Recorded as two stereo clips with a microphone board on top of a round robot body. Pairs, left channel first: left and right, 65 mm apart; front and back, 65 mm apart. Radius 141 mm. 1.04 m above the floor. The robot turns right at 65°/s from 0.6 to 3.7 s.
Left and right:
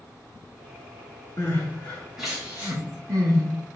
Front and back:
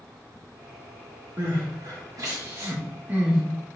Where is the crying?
130° left, 2.5 m; by 3.4 s 95° right, 2.5 m.